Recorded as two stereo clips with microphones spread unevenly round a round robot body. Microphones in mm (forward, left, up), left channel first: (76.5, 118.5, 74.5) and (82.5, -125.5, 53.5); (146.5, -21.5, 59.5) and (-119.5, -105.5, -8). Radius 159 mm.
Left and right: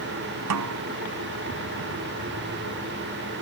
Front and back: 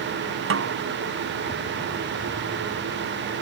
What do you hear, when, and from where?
0.5 s a snare drum: 120° right